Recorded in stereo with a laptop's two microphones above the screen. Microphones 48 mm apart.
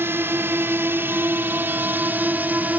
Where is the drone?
60° right (ahead or behind); by 2.8 s 40° right (ahead or behind).